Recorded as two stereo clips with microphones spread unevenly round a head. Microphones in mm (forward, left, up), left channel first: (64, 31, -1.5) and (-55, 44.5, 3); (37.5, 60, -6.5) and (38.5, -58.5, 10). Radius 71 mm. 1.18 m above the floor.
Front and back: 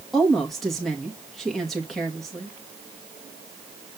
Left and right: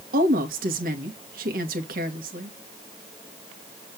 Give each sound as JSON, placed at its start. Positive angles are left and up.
{"t": 0.1, "sound": "a woman speaking", "azimuth_deg": -95, "distance_m": 2.0}